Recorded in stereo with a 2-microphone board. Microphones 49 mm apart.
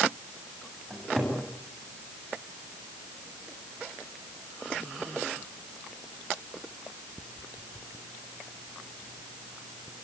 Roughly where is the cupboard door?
Centre.